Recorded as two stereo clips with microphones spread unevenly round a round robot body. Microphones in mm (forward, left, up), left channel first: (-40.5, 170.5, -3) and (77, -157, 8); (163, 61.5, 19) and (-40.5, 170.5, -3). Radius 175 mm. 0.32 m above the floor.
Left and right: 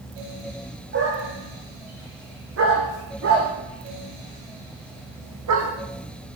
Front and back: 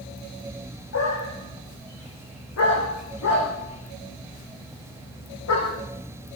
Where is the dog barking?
10° right, 9 m; by 5.7 s 25° right, 8.5 m.